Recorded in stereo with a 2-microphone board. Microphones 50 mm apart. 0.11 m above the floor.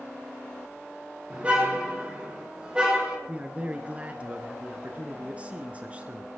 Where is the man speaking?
25° right (ahead or behind), 1.2 m.